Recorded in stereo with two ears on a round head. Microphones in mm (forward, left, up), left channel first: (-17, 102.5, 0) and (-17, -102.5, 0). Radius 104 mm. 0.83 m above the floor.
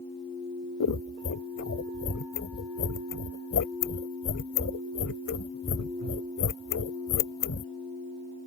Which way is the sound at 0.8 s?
55° left (ahead or behind).